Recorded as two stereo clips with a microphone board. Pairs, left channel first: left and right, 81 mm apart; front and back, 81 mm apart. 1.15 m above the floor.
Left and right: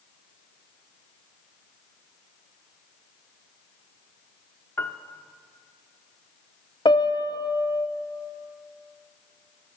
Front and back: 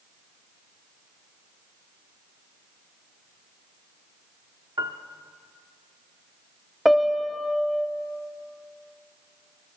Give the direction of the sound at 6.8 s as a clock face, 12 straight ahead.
9 o'clock.